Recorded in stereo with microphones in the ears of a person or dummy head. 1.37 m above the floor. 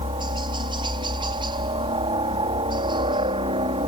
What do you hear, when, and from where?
0.0 s a helicopter: 25° right (ahead or behind)